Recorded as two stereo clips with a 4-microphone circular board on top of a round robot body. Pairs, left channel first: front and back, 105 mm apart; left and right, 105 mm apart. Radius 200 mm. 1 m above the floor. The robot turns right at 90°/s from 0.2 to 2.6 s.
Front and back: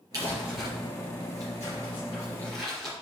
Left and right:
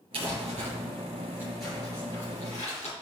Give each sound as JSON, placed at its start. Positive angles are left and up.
{"t": 0.1, "sound": "crumpling", "azimuth_deg": -125, "distance_m": 3.5}